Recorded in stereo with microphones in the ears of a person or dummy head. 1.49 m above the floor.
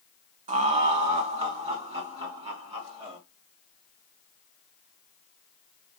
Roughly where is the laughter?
Right.